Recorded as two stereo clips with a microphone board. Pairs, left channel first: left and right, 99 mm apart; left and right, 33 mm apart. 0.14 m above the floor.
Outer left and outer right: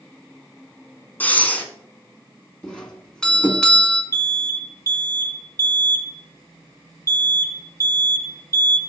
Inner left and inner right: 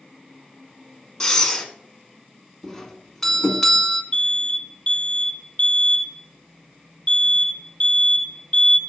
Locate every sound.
1.2 s breathing: 15° left (ahead or behind), 1.5 m
2.6 s a doorbell: 5° left (ahead or behind), 1.6 m
4.1 s an alarm: 30° left (ahead or behind), 1.5 m